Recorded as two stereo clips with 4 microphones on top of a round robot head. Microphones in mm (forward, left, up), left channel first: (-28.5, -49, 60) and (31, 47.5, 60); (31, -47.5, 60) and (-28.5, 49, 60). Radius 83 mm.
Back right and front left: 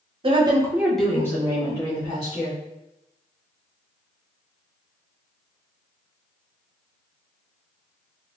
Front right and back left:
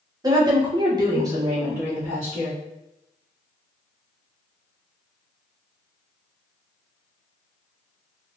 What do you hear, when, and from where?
0.2 s a woman speaking: 75° left, 1.1 m; by 2.6 s 160° right, 2.5 m